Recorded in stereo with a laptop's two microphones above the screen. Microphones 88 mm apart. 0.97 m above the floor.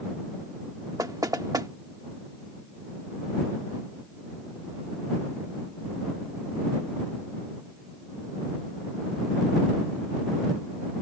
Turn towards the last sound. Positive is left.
turn(degrees=-45)  # may be behind; listen again after turning